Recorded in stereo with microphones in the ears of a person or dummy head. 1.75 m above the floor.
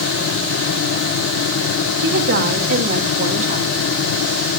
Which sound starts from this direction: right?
A woman speaking, at 2.0 s.